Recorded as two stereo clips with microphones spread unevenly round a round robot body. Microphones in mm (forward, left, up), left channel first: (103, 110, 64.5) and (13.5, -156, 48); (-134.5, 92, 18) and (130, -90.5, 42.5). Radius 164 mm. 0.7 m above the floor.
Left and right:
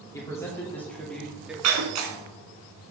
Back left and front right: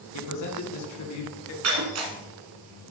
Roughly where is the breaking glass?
Right.